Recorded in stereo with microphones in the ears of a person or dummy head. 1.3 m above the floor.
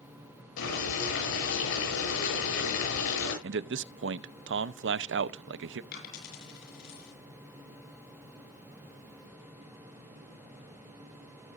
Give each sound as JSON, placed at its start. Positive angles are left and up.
{"t": 0.6, "sound": "boiling", "side_deg": 75, "distance_m": 9.5}
{"t": 3.4, "sound": "a man speaking", "side_deg": -65, "distance_m": 0.6}
{"t": 5.9, "sound": "a dropped coin", "side_deg": 60, "distance_m": 6.5}